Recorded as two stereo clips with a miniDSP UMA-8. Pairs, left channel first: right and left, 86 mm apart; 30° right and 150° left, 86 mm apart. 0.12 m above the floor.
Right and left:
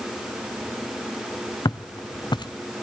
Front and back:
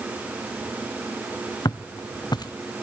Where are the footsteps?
60° right, 0.5 m.